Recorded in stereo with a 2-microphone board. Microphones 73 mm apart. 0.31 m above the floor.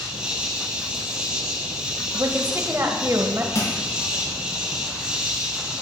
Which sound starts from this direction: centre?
An insect, at 0.0 s.